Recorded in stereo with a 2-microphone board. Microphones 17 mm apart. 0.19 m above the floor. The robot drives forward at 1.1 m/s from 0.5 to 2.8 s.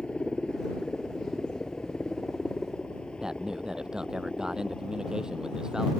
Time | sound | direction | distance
0.0 | a helicopter | 70° left (ahead or behind) | ?
3.2 | a man speaking | 45° right (ahead or behind) | ?